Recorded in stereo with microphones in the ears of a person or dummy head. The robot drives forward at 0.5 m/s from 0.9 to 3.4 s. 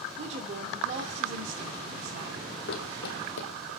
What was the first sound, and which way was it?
A woman speaking, 40° right (ahead or behind).